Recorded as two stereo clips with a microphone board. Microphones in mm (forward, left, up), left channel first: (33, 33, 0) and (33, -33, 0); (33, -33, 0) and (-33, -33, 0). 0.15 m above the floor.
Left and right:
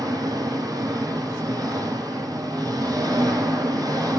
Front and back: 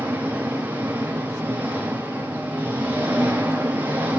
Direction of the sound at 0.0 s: 115° right.